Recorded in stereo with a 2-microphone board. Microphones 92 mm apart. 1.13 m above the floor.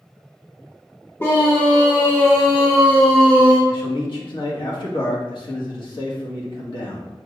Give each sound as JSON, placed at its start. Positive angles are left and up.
{"t": 1.2, "sound": "a scream", "side_deg": 25, "distance_m": 1.2}
{"t": 3.7, "sound": "a man speaking", "side_deg": 55, "distance_m": 1.9}